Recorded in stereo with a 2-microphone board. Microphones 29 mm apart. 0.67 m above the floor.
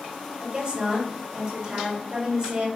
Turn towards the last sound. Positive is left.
turn(degrees=-45)  # may be behind; listen again after turning